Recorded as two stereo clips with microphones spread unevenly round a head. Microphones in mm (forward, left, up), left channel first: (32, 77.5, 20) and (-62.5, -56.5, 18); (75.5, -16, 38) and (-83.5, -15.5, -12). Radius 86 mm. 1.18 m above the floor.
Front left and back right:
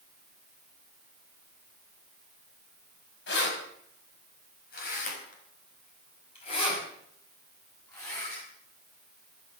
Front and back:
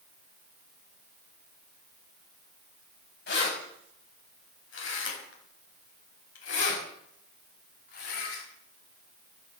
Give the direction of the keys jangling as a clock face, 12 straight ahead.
11 o'clock.